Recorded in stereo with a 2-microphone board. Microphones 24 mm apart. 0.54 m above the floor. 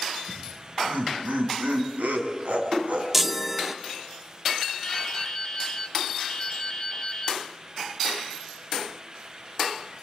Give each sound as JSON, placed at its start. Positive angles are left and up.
{"t": 0.3, "sound": "laughter", "side_deg": -70, "distance_m": 5.0}
{"t": 3.1, "sound": "a chime", "side_deg": -10, "distance_m": 0.8}
{"t": 4.8, "sound": "dripping", "side_deg": 20, "distance_m": 1.4}